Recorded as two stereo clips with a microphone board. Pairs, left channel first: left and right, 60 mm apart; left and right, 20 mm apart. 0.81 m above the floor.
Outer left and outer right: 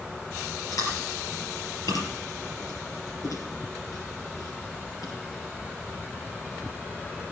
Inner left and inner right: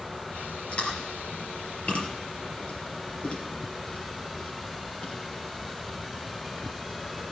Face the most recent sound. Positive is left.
turn(degrees=80)